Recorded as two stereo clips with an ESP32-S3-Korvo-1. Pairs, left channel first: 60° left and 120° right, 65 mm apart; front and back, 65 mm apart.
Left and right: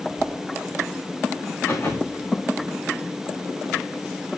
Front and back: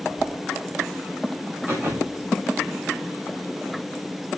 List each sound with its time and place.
0.2 s a whoosh: 135° left, 3 m
1.7 s a thud: 120° left, 8 m